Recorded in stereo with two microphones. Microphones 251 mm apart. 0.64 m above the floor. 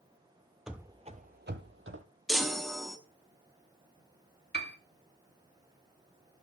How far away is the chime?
About 0.9 m.